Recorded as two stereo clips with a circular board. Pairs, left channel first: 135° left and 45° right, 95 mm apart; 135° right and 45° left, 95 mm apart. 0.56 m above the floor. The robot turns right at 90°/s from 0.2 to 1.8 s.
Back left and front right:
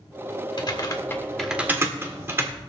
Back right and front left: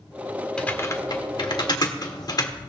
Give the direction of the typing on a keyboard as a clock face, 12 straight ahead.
7 o'clock.